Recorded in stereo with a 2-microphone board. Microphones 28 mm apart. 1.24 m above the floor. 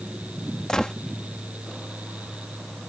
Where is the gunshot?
20° left (ahead or behind).